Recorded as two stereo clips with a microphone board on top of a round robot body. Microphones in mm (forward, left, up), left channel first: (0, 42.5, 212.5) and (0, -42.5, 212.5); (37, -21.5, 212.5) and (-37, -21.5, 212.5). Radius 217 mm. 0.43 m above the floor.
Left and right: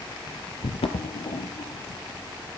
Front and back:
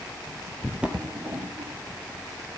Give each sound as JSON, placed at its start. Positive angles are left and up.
{"t": 0.6, "sound": "footsteps", "azimuth_deg": 95, "distance_m": 1.1}